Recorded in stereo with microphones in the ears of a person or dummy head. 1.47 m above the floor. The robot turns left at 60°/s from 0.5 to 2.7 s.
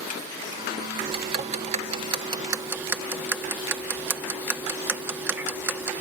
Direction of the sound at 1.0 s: 30° right (ahead or behind).